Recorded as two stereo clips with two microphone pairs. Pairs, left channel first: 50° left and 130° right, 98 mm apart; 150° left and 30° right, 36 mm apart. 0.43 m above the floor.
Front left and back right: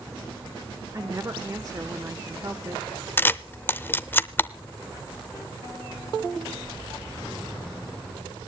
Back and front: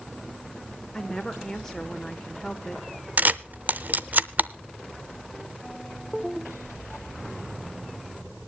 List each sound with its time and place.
0.9 s a woman speaking: 140° right, 1.1 m
3.2 s a camera shutter: 15° right, 0.5 m